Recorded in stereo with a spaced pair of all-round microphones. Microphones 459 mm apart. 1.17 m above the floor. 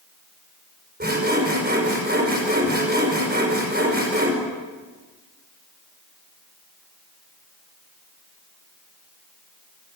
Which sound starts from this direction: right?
Sawing, at 1.0 s.